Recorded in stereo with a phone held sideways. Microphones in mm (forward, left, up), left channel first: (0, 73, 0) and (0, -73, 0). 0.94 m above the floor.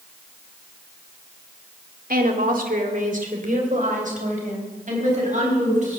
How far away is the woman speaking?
About 1.8 m.